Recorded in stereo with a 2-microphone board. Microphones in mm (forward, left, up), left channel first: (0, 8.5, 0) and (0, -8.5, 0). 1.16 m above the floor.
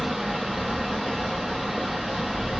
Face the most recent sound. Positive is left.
turn(degrees=-20)  # may be behind; listen again after turning